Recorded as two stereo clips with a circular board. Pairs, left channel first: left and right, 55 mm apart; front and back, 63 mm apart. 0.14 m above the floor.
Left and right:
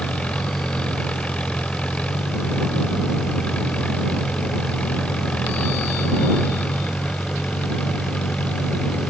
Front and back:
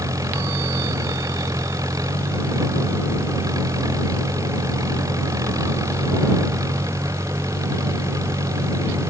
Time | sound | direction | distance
0.0 | an engine running | 160° left | ?